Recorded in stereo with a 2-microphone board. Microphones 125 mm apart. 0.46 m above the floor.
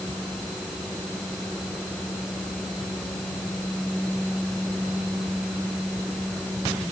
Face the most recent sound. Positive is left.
No sound to turn to.